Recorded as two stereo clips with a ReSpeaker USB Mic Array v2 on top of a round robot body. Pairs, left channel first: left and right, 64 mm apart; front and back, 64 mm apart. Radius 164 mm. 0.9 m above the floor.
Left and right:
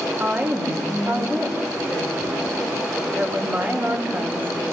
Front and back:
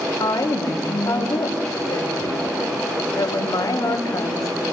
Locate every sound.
0.2 s a woman speaking: 35° right, 3.5 m